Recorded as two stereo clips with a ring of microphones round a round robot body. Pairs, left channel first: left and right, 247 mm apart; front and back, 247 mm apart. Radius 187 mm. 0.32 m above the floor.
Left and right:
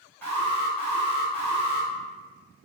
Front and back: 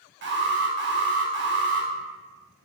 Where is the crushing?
I don't hear crushing.